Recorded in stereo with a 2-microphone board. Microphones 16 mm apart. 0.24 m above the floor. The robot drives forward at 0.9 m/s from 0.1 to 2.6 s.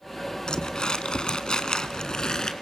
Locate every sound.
0.5 s crumpling: 55° left (ahead or behind), 1.6 m; by 2.5 s 45° left (ahead or behind), 1.9 m